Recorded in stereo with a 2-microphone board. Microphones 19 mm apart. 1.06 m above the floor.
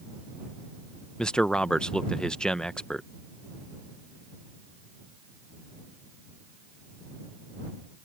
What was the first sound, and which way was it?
A man speaking, 50° left (ahead or behind).